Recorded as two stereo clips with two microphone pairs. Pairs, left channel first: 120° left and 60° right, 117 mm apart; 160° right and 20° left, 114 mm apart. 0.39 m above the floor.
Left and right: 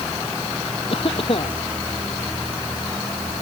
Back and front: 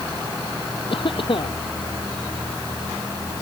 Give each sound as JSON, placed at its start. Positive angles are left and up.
{"t": 0.9, "sound": "a cough", "azimuth_deg": 160}